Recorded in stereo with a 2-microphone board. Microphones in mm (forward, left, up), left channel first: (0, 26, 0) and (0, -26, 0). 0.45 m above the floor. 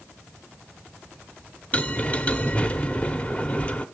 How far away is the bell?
About 1.0 m.